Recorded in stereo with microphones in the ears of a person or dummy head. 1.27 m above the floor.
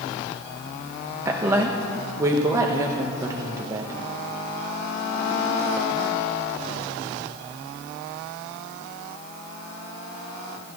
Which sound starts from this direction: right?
A woman speaking, at 1.2 s.